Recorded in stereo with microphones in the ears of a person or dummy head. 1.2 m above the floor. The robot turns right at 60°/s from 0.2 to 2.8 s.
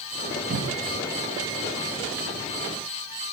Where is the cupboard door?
60° right (ahead or behind), 2.0 m; by 1.0 s 75° right (ahead or behind), 2.0 m.